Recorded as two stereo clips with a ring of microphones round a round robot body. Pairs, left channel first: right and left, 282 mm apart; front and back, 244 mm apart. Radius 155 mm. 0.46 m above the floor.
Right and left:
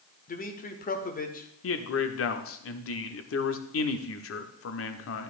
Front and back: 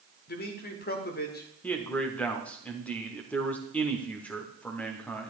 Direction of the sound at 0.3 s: 40° right.